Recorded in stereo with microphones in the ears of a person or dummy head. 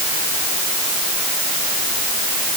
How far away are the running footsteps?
No running footsteps in this recording.